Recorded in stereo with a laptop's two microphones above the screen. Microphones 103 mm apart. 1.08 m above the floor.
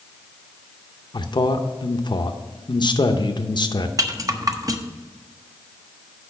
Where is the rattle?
35° right (ahead or behind), 0.8 m.